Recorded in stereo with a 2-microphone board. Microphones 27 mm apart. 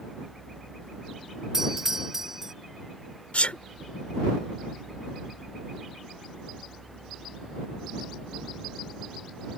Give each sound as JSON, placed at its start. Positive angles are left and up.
{"t": 1.5, "sound": "a doorbell", "side_deg": -15}
{"t": 3.3, "sound": "a sneeze", "side_deg": 55}